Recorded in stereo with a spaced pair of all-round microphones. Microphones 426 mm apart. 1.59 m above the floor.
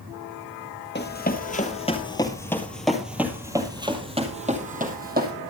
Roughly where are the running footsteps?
Left.